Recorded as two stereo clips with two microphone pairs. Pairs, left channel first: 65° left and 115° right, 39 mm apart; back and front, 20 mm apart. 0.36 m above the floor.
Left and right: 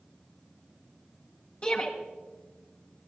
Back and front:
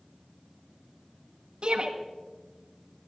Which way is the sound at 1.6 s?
20° left.